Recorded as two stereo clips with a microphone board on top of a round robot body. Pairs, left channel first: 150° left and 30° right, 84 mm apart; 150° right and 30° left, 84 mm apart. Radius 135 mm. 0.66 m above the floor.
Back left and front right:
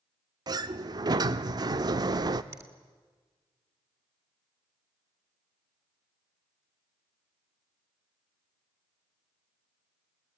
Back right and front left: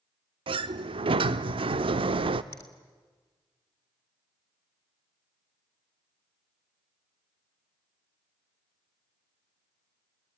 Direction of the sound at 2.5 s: 90° right.